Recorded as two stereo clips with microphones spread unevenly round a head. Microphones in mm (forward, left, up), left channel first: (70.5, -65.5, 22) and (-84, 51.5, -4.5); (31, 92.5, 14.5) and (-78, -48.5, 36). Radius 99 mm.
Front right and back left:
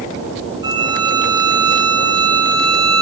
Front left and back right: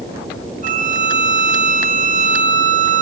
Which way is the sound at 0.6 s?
165° right.